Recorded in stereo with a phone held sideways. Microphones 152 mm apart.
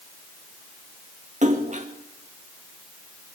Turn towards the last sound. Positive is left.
turn(degrees=-55)  # may be behind; listen again after turning